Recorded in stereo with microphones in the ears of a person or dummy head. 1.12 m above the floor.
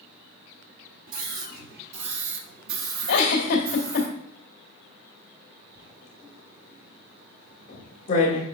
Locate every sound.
1.1 s a scream: 55° right (ahead or behind), 3 m; by 4.1 s 60° right (ahead or behind), 1.9 m
3.1 s a giggle: 60° left (ahead or behind), 1.8 m
5.8 s writing: 40° left (ahead or behind), 2.0 m